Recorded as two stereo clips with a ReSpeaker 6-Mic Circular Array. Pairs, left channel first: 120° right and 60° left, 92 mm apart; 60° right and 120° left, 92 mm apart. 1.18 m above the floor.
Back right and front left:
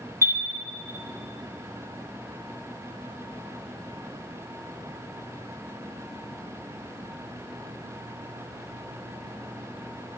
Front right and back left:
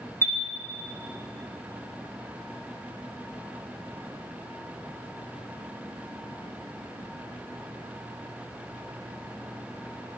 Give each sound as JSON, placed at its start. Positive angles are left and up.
{"t": 0.2, "sound": "a chime", "azimuth_deg": 0, "distance_m": 1.0}